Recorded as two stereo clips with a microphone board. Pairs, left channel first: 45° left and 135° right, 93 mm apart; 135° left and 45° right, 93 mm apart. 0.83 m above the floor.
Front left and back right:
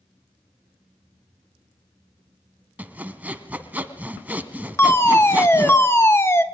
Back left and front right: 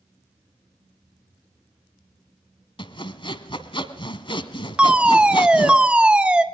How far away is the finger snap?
No finger snap in this recording.